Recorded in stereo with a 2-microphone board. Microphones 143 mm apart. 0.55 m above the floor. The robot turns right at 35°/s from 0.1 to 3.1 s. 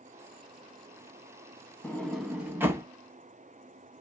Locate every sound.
1.8 s a sliding door: 10° left (ahead or behind), 0.8 m; by 2.9 s 25° right (ahead or behind), 0.8 m